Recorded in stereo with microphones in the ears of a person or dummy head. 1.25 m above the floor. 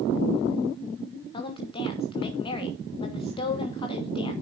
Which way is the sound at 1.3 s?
15° left (ahead or behind).